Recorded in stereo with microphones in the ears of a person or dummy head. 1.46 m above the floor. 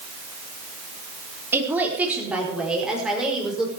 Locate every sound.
1.5 s a woman speaking: 10° right (ahead or behind), 3.5 m; by 3.7 s centre (ahead or behind), 6.5 m